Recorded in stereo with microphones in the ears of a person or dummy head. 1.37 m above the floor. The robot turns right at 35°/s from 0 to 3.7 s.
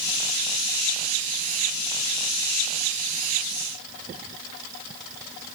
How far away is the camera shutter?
No camera shutter in this recording.